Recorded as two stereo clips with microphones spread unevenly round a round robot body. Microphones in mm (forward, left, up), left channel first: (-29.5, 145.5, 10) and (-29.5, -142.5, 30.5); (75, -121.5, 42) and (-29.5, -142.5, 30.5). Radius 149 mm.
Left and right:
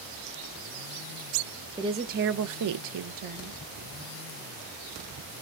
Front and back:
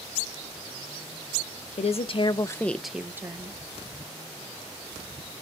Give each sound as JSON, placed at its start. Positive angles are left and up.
{"t": 1.8, "sound": "a woman speaking", "azimuth_deg": -10, "distance_m": 0.8}